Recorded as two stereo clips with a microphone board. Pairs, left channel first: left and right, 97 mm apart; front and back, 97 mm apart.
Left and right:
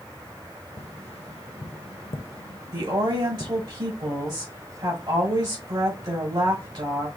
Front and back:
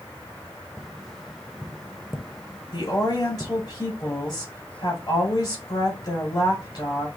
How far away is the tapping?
About 0.5 m.